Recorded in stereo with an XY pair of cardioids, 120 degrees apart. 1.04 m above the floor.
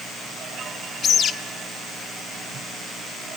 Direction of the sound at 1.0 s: 50° left.